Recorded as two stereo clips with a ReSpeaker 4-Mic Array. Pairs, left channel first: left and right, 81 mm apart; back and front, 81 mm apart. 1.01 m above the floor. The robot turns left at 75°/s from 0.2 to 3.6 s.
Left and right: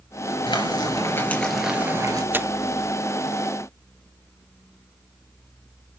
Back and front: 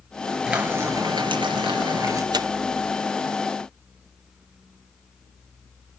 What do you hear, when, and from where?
0.5 s frying: 85° left, 4 m; by 2.2 s 50° right, 4 m
2.3 s tearing paper: 25° right, 0.6 m; by 2.5 s 40° right, 0.6 m